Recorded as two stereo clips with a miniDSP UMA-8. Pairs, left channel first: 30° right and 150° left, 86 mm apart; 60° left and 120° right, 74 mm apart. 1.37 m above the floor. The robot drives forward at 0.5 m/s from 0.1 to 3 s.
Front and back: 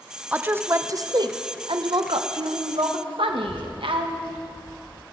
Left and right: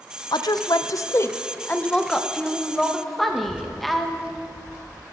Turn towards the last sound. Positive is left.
turn(degrees=-45)